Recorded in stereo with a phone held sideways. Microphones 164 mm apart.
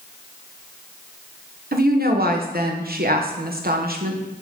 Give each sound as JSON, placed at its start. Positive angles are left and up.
{"t": 1.7, "sound": "a woman speaking", "side_deg": -65, "distance_m": 1.1}